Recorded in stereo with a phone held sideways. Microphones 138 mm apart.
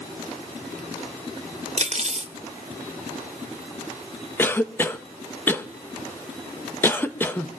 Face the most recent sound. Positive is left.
turn(degrees=15)  # may be behind; listen again after turning